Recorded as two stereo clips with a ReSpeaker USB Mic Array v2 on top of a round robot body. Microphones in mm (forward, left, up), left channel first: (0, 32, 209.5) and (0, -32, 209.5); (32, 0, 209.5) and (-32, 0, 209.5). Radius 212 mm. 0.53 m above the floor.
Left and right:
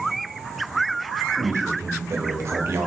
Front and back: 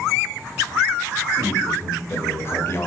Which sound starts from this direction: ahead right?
A man speaking, at 1.4 s.